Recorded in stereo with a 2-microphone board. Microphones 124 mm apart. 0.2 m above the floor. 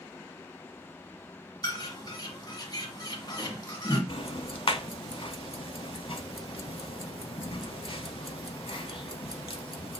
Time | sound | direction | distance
1.6 | a bird | 35° left (ahead or behind) | 1.4 m
4.1 | ticking | 55° left (ahead or behind) | 0.7 m